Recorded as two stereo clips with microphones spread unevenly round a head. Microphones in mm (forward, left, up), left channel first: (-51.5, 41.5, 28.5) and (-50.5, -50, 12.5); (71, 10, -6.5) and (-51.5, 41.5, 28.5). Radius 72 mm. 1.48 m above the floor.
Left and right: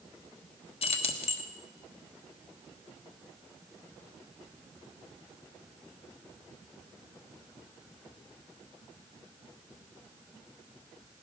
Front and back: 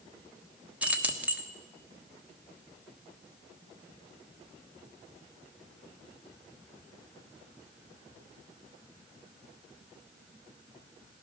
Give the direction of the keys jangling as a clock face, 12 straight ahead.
9 o'clock.